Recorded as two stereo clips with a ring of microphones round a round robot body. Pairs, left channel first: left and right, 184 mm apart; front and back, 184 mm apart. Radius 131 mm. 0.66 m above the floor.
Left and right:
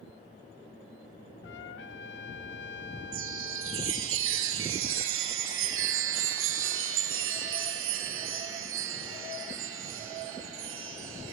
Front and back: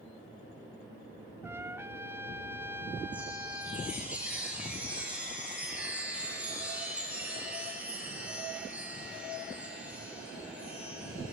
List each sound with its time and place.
1.4 s a trumpet: 105° left, 1.4 m
3.1 s a chime: 95° right, 3 m